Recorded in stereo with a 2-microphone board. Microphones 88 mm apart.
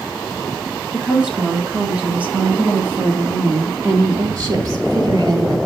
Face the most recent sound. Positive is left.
turn(degrees=-50)  # may be behind; listen again after turning